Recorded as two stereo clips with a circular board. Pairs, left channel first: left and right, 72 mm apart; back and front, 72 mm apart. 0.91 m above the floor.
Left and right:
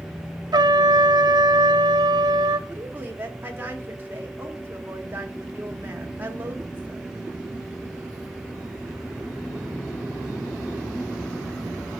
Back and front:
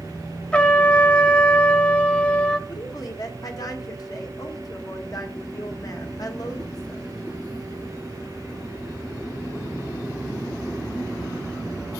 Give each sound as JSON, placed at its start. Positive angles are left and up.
{"t": 0.5, "sound": "a trumpet", "azimuth_deg": -105, "distance_m": 0.7}
{"t": 2.7, "sound": "a woman speaking", "azimuth_deg": -150, "distance_m": 1.6}